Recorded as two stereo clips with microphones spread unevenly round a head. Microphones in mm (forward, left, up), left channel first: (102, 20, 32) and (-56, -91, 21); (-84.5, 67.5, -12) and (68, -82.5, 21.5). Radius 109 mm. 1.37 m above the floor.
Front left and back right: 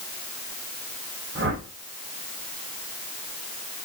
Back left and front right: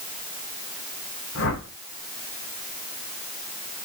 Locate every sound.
1.4 s a whoosh: 170° left, 3 m